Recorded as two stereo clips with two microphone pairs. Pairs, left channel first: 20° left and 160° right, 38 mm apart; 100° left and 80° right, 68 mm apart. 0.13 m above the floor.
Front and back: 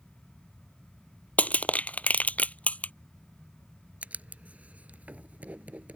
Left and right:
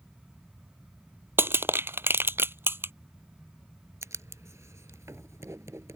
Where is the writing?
115° right.